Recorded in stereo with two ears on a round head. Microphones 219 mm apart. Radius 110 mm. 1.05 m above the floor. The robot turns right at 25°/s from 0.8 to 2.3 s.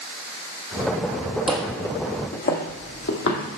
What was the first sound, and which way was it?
Footsteps, 5° right (ahead or behind).